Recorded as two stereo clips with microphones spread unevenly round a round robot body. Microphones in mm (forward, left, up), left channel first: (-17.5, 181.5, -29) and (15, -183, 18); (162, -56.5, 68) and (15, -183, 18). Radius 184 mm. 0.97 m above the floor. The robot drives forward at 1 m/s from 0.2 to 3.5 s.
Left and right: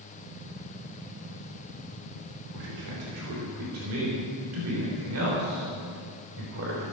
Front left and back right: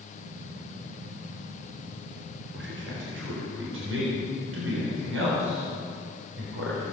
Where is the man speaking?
125° right, 3.5 m; by 6.8 s 140° right, 4 m.